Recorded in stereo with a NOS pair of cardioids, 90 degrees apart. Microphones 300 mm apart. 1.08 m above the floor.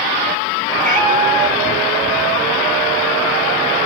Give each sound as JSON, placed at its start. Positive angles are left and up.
{"t": 0.8, "sound": "a cat meowing", "azimuth_deg": -25, "distance_m": 1.3}